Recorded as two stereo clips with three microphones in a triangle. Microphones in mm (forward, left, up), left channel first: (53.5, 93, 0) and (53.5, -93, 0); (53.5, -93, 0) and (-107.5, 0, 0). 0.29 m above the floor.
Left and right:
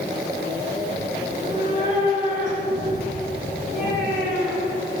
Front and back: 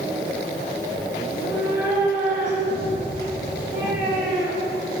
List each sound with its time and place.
1.3 s a cat meowing: 30° right, 1.6 m; by 4.9 s 70° right, 3 m